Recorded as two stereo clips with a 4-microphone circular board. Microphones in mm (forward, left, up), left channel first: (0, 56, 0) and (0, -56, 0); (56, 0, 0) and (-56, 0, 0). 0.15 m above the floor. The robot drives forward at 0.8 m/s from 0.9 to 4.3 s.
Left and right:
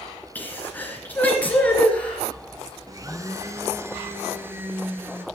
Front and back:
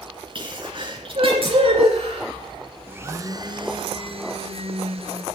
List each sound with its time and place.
0.3 s a sneeze: 160° left, 2 m; by 2.3 s 170° left, 3 m
2.9 s a blender: 120° right, 1.0 m; by 5.2 s 160° right, 1.8 m